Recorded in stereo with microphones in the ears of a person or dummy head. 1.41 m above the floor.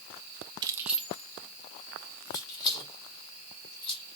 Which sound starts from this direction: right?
Keys jangling, at 0.6 s.